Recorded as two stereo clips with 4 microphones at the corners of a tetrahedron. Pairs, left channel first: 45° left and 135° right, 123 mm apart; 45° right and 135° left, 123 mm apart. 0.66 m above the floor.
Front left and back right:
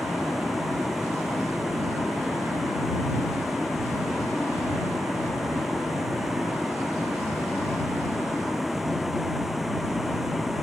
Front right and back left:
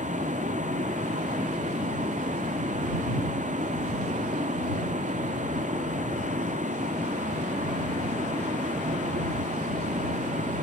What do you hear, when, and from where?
0.0 s a vehicle: 135° left